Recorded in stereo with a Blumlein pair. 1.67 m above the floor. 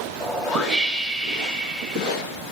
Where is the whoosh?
5° right, 2.5 m.